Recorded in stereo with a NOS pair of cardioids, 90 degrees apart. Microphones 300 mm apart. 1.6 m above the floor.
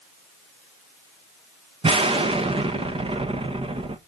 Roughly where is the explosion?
Ahead.